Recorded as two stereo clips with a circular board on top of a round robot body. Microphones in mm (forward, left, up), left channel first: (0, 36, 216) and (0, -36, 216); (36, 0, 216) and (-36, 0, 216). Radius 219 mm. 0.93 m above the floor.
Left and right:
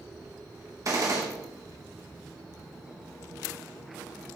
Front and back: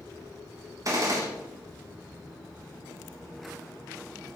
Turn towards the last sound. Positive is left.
turn(degrees=-135)